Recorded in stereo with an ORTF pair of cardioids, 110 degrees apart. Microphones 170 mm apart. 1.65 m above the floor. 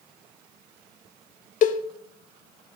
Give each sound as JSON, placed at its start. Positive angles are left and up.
{"t": 1.6, "sound": "a cowbell", "azimuth_deg": 50, "distance_m": 0.8}